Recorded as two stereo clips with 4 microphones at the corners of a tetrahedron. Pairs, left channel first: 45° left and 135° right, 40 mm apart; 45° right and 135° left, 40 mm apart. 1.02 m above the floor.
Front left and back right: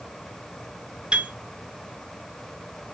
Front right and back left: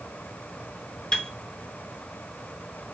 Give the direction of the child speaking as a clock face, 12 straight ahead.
I don't hear a child speaking.